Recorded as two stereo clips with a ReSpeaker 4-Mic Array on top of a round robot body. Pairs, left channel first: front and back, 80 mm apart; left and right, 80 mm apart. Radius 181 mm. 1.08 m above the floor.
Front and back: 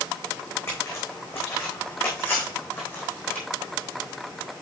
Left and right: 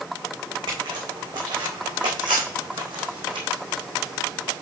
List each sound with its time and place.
0.7 s footsteps: 60° right, 4 m; by 3.5 s 70° right, 2.5 m